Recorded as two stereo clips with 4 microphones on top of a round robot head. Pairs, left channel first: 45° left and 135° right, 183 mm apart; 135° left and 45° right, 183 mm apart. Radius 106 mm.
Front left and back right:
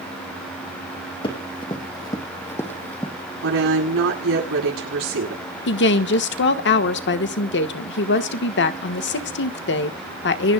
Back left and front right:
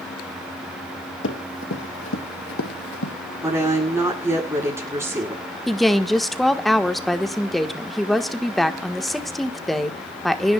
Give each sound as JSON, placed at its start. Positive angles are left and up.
{"t": 1.2, "sound": "running footsteps", "azimuth_deg": 110, "distance_m": 3.0}
{"t": 3.4, "sound": "a woman speaking", "azimuth_deg": -125, "distance_m": 9.0}
{"t": 5.7, "sound": "a woman speaking", "azimuth_deg": 45, "distance_m": 1.4}